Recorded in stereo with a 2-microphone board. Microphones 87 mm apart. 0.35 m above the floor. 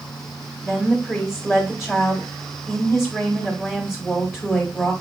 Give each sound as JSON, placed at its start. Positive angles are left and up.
{"t": 0.6, "sound": "a woman speaking", "side_deg": -5, "distance_m": 1.1}